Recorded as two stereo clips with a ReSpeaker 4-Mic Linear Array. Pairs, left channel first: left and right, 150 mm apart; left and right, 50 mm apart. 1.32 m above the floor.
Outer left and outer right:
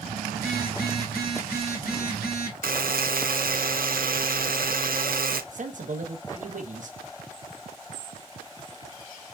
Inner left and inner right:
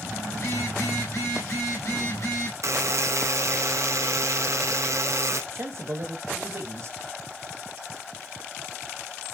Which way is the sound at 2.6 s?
65° right (ahead or behind).